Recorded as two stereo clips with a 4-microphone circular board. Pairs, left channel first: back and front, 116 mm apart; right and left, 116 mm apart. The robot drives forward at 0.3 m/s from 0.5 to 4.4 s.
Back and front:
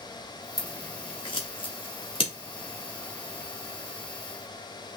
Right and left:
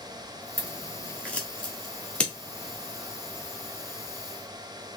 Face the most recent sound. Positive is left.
turn(degrees=-175)